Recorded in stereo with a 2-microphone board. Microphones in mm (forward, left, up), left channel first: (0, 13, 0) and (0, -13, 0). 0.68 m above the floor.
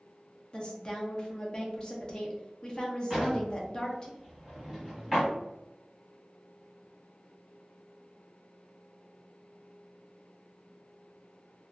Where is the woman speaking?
30° left (ahead or behind), 0.6 m.